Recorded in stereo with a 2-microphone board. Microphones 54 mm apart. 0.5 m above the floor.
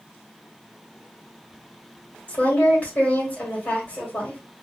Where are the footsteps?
No footsteps in this recording.